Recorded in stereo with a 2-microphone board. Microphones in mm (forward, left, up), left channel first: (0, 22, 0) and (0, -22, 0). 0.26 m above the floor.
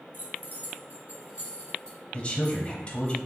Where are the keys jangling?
50° right (ahead or behind), 1.8 m; by 3.1 s 5° right (ahead or behind), 2.5 m.